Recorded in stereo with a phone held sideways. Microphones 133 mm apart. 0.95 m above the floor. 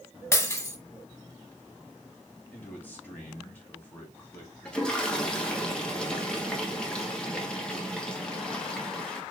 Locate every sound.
0.3 s breaking glass: 20° left (ahead or behind), 0.8 m
2.5 s a man speaking: 15° left (ahead or behind), 1.9 m
4.7 s a toilet flushing: 5° left (ahead or behind), 1.1 m